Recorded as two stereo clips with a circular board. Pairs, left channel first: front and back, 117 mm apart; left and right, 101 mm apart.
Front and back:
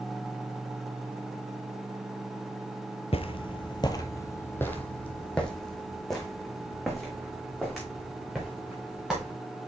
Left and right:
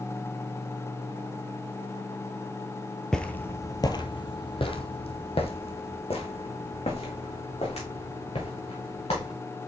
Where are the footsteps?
10° left, 0.8 m; by 9.3 s 95° left, 4 m.